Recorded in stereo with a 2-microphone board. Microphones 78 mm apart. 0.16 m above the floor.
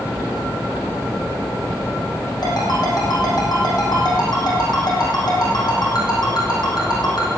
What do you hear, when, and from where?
2.4 s a ringtone: 60° left (ahead or behind), 5 m